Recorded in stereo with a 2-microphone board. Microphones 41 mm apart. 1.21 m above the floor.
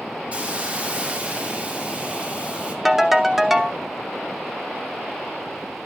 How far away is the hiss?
About 2.0 m.